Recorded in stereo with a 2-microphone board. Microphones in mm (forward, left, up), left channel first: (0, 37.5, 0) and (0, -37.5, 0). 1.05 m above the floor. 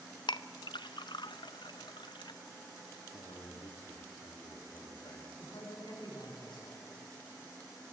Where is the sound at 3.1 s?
65° left (ahead or behind), 2.5 m.